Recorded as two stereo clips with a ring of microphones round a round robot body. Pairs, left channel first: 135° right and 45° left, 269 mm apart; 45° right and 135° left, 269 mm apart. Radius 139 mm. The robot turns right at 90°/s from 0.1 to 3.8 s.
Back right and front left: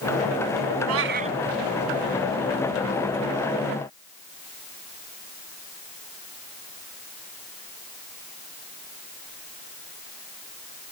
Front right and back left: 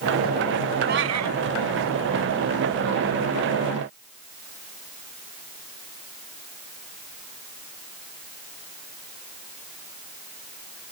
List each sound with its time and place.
0.9 s a cat meowing: 75° left; by 1.4 s 120° left